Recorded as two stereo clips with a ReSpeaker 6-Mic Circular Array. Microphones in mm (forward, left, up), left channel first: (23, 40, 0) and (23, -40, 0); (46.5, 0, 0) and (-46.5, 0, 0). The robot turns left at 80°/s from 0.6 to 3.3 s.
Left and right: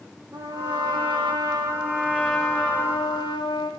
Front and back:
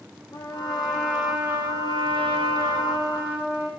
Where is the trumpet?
35° right, 7 m; by 3.7 s 110° left, 7 m.